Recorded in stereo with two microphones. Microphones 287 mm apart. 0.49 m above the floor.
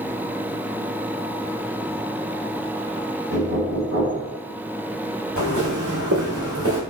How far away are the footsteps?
About 2.0 m.